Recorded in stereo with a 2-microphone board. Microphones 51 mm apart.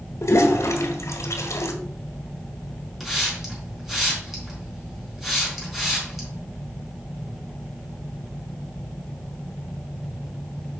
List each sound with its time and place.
0.2 s a toilet flushing: 80° left, 1.5 m
3.0 s a hiss: 5° right (ahead or behind), 3.5 m